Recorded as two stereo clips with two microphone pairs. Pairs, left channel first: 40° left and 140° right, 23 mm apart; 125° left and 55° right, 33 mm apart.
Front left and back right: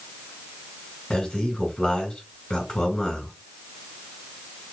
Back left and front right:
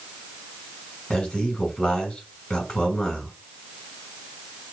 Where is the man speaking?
65° left, 3 m.